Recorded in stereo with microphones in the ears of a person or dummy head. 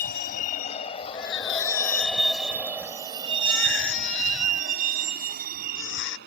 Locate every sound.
0.0 s a vehicle: 50° left (ahead or behind); by 6.3 s 65° right (ahead or behind)
1.1 s a baby crying: 75° left (ahead or behind)